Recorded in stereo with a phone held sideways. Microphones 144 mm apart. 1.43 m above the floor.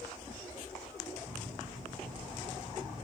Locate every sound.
1.2 s a microwave: 85° right, 6 m